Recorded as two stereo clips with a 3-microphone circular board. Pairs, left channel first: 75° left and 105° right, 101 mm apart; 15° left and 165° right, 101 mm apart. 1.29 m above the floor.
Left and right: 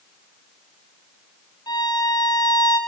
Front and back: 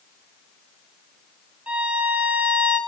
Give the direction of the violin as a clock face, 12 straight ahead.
8 o'clock.